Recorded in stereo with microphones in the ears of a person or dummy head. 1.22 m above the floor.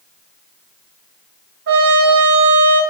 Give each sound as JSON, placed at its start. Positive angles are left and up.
{"t": 1.7, "sound": "a trumpet", "side_deg": -55, "distance_m": 3.0}